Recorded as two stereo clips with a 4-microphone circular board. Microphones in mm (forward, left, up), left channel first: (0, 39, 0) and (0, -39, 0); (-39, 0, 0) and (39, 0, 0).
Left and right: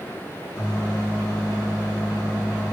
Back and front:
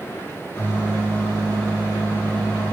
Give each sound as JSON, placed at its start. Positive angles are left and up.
{"t": 0.6, "sound": "a microwave", "azimuth_deg": 115, "distance_m": 2.5}